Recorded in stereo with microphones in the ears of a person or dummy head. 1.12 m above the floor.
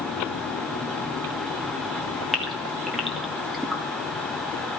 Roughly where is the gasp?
Centre.